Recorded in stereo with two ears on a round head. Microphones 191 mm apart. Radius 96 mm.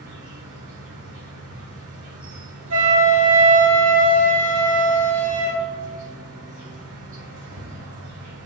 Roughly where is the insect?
Right.